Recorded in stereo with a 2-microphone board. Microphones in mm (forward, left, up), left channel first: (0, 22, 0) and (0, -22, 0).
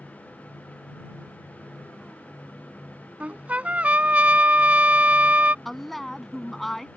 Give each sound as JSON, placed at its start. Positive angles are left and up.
{"t": 3.2, "sound": "a trumpet", "side_deg": -35}
{"t": 5.7, "sound": "a woman speaking", "side_deg": 5}